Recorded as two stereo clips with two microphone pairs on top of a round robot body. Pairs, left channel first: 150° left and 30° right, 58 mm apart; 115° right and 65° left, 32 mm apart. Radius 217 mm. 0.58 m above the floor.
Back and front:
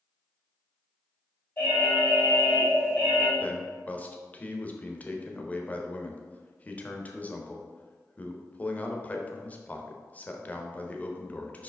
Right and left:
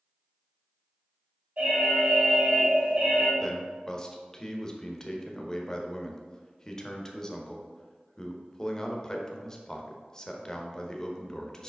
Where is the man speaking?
175° right, 1.3 m.